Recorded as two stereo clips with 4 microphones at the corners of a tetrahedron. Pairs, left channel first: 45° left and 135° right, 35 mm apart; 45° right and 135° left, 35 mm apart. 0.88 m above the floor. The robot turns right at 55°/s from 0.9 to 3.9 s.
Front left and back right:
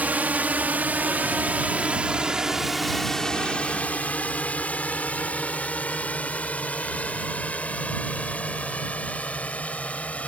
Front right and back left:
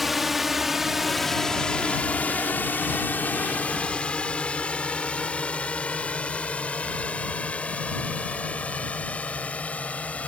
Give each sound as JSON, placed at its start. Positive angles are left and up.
{"t": 0.0, "sound": "a drone", "azimuth_deg": -140}